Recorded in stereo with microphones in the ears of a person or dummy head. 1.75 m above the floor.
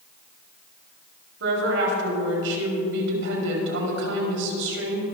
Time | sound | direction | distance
1.4 | a woman speaking | 60° right (ahead or behind) | 4 m